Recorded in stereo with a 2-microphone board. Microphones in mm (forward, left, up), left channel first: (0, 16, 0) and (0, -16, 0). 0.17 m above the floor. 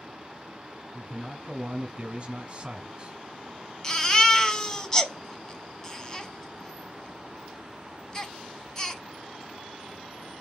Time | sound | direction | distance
0.9 | a man speaking | 20° right (ahead or behind) | 1.4 m
3.8 | a baby crying | 20° left (ahead or behind) | 0.7 m